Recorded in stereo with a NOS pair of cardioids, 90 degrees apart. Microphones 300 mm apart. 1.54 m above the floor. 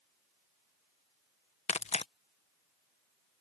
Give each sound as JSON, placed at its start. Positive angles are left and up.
{"t": 1.7, "sound": "tearing paper", "azimuth_deg": 20}